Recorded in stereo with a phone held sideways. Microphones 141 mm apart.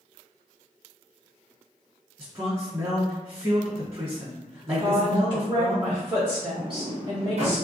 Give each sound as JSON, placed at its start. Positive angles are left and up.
{"t": 2.2, "sound": "a man speaking", "side_deg": -30, "distance_m": 1.1}
{"t": 4.8, "sound": "a woman speaking", "side_deg": -35, "distance_m": 0.9}
{"t": 6.6, "sound": "a sliding door", "side_deg": -50, "distance_m": 0.8}